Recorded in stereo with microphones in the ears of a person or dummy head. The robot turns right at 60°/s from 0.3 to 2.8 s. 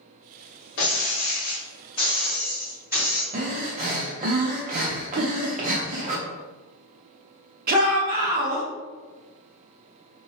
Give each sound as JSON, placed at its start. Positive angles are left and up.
{"t": 0.8, "sound": "breaking glass", "azimuth_deg": 75, "distance_m": 1.3}
{"t": 3.3, "sound": "breathing", "side_deg": -45, "distance_m": 0.5}
{"t": 5.2, "sound": "a giggle", "side_deg": -80, "distance_m": 0.6}
{"t": 7.7, "sound": "a shout", "side_deg": -50, "distance_m": 0.6}